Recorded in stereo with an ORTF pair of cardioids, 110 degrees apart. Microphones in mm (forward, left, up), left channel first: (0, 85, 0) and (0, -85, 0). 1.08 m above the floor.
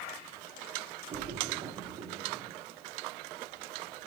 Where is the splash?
45° right, 2 m.